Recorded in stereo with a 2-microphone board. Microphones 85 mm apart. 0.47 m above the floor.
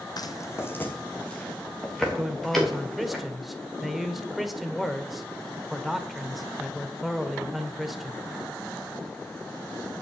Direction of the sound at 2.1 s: Centre (ahead or behind).